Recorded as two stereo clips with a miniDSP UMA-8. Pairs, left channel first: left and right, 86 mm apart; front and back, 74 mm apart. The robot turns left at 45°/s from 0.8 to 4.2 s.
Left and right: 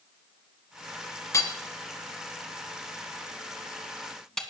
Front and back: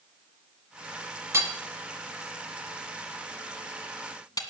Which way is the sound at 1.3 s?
135° left.